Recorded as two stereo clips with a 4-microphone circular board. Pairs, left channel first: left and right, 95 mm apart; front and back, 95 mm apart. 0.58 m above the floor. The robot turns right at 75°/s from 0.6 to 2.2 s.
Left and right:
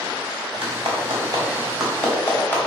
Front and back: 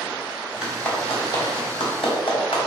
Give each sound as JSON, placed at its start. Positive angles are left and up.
{"t": 0.6, "sound": "a clap", "azimuth_deg": -95, "distance_m": 3.0}